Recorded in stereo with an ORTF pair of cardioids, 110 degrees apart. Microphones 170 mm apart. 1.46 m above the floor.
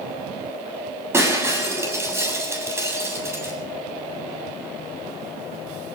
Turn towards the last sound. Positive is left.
turn(degrees=-15)